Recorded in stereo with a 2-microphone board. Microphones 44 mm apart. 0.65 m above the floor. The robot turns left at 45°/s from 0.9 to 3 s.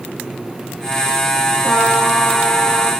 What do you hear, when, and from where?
1.6 s a trumpet: 50° left, 1.7 m; by 2.9 s 5° right, 1.7 m